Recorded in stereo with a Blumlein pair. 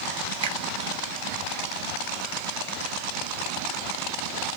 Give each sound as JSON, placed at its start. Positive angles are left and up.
{"t": 0.4, "sound": "a finger snap", "azimuth_deg": -55, "distance_m": 0.7}